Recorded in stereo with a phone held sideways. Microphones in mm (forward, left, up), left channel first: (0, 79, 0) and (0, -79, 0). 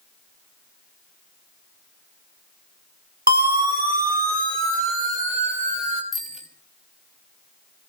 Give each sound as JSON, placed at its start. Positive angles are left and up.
{"t": 3.3, "sound": "a siren", "side_deg": -75, "distance_m": 3.5}
{"t": 6.1, "sound": "a bicycle bell", "side_deg": -60, "distance_m": 4.0}